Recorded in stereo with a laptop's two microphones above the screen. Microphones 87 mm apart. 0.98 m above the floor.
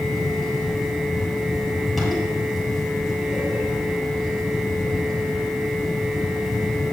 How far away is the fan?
About 5 m.